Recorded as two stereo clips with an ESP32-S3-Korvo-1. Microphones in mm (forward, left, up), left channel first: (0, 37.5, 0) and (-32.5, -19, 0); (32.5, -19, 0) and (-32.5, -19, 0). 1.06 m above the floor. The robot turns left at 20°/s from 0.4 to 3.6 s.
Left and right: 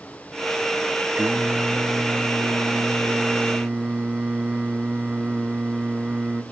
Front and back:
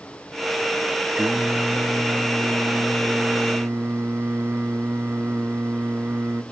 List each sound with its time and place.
1.2 s singing: 135° right, 0.6 m; by 6.4 s 175° left, 0.6 m